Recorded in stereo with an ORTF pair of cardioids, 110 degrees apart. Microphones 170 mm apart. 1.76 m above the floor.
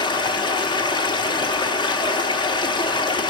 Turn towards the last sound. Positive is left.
turn(degrees=25)